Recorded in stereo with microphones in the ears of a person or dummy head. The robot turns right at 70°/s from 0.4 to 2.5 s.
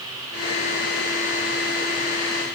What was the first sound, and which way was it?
Only background noise.